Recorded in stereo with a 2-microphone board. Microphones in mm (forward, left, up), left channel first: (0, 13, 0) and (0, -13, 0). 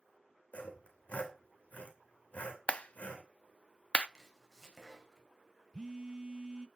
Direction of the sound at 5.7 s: 30° right (ahead or behind).